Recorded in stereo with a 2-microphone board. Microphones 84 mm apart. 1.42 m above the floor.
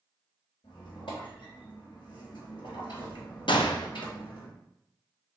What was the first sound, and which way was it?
A squeak, 75° left (ahead or behind).